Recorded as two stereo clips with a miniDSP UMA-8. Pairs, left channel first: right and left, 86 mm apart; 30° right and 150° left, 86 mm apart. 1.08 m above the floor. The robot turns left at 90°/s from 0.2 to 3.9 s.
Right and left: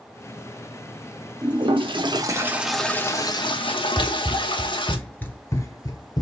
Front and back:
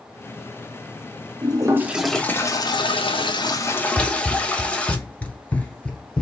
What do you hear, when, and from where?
1.4 s a toilet flushing: 120° left, 0.9 m; by 5.0 s 105° right, 0.9 m
4.0 s running footsteps: 35° left, 1.3 m; by 6.2 s 100° right, 1.6 m